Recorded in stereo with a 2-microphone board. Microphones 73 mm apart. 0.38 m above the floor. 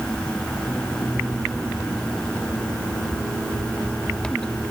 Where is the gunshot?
I don't hear a gunshot.